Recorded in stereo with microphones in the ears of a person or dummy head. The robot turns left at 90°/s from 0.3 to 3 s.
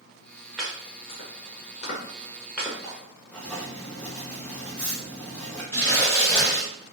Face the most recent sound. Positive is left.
turn(degrees=15)  # may be behind; listen again after turning